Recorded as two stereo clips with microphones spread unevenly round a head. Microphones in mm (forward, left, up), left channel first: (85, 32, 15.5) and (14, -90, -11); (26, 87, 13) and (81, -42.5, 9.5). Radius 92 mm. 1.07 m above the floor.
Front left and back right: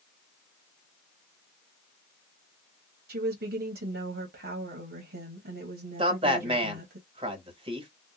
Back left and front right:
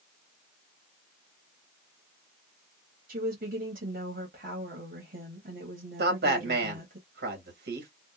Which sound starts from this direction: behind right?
A woman speaking, at 3.1 s.